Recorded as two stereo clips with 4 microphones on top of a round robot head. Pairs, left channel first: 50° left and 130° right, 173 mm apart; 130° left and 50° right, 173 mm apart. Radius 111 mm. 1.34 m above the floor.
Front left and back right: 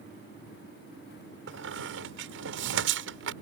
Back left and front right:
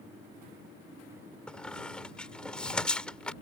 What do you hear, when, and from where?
1.5 s a squeak: 145° right